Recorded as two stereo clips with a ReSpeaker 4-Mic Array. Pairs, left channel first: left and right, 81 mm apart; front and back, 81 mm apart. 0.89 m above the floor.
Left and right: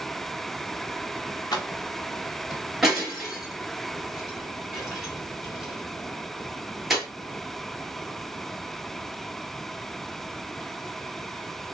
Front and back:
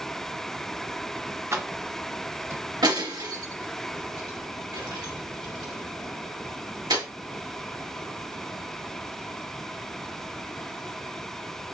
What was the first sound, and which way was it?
Keys jangling, 125° left.